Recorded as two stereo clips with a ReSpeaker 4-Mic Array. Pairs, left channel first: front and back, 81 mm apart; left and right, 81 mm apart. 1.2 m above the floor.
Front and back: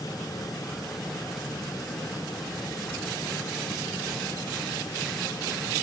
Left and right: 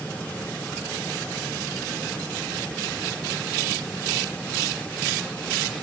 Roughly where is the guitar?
No guitar in this recording.